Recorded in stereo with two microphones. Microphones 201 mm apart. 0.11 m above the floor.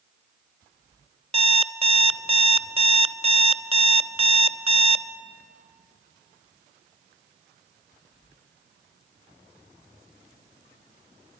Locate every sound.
1.3 s an alarm clock: 30° right (ahead or behind), 0.5 m